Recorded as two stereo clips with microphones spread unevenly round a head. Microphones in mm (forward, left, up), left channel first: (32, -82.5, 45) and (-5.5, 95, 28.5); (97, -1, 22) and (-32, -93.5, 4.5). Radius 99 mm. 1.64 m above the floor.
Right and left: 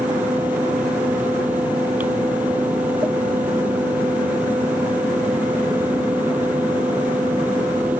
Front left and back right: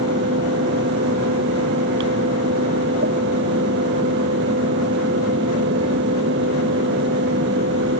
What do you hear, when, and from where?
0.0 s a fan: 175° right